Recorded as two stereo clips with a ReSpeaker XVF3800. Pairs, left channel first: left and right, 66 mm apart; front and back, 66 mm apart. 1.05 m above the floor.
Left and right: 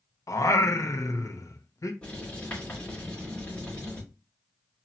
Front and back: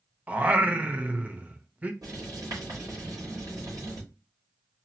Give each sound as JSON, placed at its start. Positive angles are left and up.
{"t": 0.3, "sound": "singing", "azimuth_deg": 115, "distance_m": 0.6}
{"t": 2.0, "sound": "writing", "azimuth_deg": 160, "distance_m": 3.5}